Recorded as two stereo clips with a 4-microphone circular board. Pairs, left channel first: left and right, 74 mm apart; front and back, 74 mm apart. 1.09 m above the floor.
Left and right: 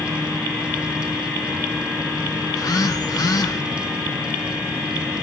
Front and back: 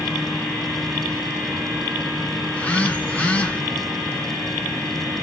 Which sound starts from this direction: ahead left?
A phone buzzing, at 2.5 s.